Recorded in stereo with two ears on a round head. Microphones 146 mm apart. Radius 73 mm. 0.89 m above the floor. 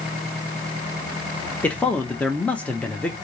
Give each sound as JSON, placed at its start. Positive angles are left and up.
{"t": 1.6, "sound": "a man speaking", "side_deg": 10, "distance_m": 0.7}